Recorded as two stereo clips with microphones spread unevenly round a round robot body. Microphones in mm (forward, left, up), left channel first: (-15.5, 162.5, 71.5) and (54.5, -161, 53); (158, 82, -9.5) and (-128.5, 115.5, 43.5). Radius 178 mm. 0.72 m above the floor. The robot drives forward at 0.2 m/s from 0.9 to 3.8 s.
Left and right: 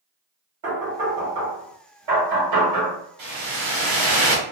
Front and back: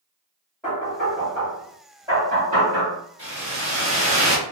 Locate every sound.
0.6 s knocking: 90° right, 2.0 m; by 3.0 s 105° right, 2 m
3.2 s a whoosh: 110° right, 1.8 m; by 4.4 s 115° right, 1.8 m